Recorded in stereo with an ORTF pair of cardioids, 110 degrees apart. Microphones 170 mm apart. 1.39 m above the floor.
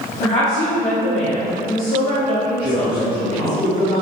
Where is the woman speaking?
50° left, 1.3 m.